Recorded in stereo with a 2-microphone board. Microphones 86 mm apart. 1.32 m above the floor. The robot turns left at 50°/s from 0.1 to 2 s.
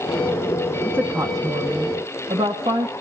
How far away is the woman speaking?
About 1.8 m.